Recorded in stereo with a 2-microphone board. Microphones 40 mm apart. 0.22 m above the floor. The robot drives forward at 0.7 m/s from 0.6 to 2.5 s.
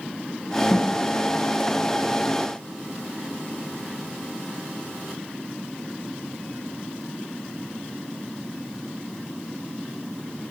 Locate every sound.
0.7 s a snare drum: 30° left (ahead or behind), 1.4 m; by 0.9 s 35° left (ahead or behind), 1.3 m